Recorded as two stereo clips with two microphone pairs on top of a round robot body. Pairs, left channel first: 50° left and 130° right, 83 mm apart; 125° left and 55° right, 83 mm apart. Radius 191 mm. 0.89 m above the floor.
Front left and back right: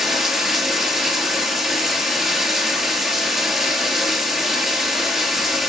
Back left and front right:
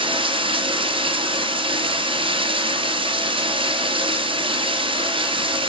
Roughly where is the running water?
Ahead right.